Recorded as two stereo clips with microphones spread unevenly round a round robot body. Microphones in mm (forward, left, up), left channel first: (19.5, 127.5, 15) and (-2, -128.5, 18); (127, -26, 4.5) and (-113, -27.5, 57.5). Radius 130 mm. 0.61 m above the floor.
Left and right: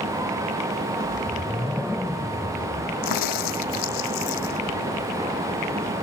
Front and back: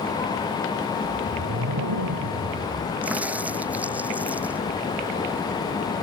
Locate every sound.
1.0 s a whoosh: 175° left
3.0 s a crack: 95° left